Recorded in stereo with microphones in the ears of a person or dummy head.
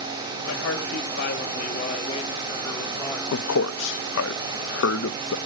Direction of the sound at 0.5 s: 80° left.